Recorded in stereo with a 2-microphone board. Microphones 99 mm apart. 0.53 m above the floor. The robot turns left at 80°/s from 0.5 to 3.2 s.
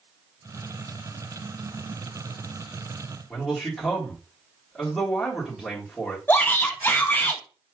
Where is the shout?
20° left (ahead or behind), 0.7 m.